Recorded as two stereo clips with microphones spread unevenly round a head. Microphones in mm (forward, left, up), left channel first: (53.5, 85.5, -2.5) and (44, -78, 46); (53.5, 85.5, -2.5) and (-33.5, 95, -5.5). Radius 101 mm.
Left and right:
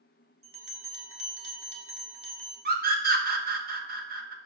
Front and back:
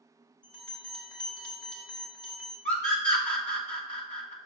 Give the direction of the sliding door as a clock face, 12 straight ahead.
I don't hear a sliding door.